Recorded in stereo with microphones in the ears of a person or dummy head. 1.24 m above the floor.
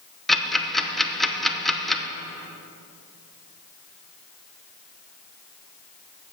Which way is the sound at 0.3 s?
Centre (ahead or behind).